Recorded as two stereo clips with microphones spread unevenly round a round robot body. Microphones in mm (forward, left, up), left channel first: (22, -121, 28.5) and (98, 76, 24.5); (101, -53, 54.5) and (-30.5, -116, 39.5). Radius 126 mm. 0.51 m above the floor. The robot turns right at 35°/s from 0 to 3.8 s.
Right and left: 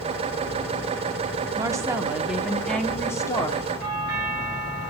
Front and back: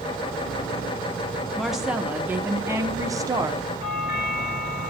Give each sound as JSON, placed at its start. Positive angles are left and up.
{"t": 1.6, "sound": "a woman speaking", "azimuth_deg": 125, "distance_m": 1.2}
{"t": 3.8, "sound": "a doorbell", "azimuth_deg": 80, "distance_m": 6.5}